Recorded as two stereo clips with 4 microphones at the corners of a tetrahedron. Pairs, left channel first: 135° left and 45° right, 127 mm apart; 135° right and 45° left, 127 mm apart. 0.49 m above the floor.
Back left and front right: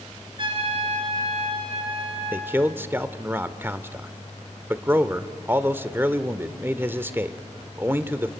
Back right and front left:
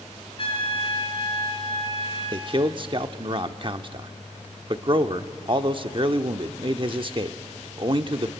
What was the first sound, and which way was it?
A trumpet, 90° right.